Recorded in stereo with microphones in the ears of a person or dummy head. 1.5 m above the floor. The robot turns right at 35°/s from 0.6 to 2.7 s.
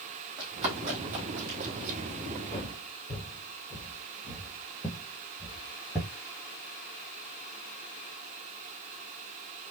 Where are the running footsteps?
30° right (ahead or behind), 3 m; by 2.0 s 60° right (ahead or behind), 3 m.